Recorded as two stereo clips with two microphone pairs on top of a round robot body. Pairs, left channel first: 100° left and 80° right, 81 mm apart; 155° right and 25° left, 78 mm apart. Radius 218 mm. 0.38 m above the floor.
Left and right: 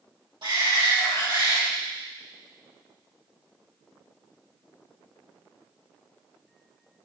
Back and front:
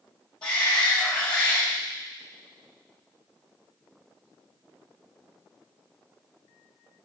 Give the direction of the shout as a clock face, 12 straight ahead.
3 o'clock.